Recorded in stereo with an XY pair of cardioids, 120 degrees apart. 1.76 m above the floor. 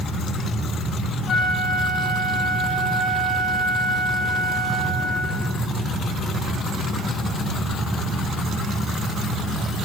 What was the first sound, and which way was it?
A flute, 35° left.